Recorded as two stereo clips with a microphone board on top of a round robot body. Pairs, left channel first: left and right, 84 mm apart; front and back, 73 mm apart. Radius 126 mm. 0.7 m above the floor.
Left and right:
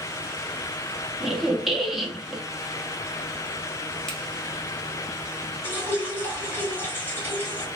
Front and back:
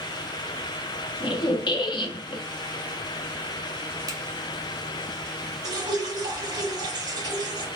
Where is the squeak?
5° right, 0.6 m.